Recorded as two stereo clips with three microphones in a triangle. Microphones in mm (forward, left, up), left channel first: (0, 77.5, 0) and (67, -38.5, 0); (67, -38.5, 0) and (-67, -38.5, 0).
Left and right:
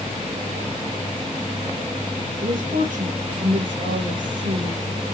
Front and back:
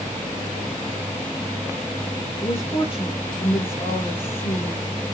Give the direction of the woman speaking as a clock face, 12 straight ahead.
2 o'clock.